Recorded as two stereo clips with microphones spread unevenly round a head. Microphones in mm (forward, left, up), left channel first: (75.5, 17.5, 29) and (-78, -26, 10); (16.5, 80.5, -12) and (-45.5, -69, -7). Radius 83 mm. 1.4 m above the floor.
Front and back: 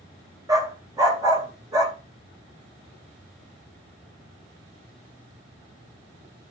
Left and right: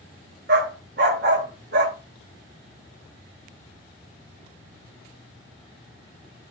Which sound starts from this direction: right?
A dog barking, at 0.5 s.